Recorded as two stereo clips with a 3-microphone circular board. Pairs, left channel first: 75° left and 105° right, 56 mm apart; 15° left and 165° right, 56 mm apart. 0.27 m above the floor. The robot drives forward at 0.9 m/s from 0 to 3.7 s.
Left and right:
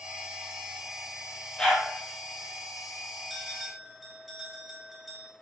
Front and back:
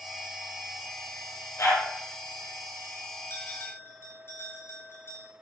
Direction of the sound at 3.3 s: 20° right.